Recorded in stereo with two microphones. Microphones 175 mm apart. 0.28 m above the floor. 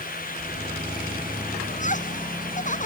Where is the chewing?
I don't hear chewing.